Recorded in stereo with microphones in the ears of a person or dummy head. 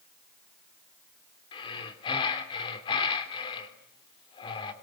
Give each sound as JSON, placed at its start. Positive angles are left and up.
{"t": 1.5, "sound": "breathing", "side_deg": 30, "distance_m": 3.5}